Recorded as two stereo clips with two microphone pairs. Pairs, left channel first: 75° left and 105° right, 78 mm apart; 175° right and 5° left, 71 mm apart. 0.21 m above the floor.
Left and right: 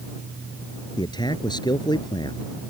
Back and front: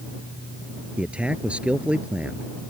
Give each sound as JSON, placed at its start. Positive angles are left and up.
{"t": 1.0, "sound": "a man speaking", "azimuth_deg": 80}